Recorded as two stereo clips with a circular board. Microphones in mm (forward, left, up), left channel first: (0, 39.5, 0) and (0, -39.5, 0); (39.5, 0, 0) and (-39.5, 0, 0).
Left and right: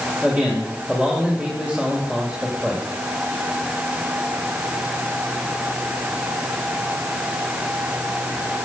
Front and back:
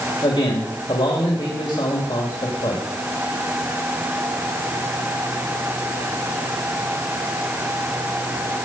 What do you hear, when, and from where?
0.2 s a man speaking: 15° right, 2.5 m